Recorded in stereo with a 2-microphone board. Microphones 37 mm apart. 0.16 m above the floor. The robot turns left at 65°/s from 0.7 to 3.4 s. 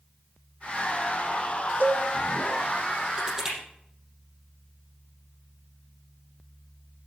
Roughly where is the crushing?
Right.